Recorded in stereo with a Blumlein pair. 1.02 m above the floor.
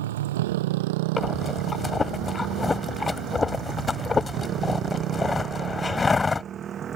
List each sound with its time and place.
0.0 s a motorcycle: 60° right; by 7.0 s 25° right
1.2 s breathing: 10° left